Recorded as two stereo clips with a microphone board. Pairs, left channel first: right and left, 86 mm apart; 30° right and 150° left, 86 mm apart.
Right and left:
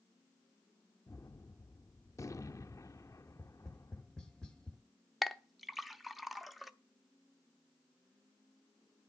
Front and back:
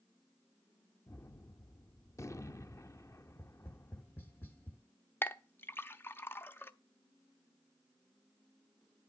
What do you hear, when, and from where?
1.1 s a gunshot: 65° right, 0.6 m
3.3 s tapping: 30° right, 1.4 m
5.2 s a clink: straight ahead, 0.6 m